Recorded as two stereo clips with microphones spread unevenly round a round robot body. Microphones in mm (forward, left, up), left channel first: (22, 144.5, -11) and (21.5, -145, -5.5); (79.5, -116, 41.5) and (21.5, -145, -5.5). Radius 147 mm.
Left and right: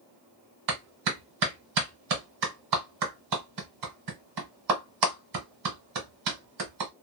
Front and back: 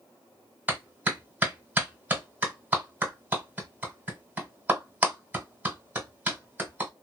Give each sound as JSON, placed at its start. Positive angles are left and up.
{"t": 0.7, "sound": "a clap", "azimuth_deg": -110, "distance_m": 1.6}